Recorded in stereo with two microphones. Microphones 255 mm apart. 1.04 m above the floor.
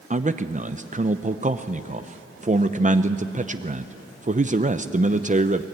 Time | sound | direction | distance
0.1 | a man speaking | 30° right (ahead or behind) | 0.6 m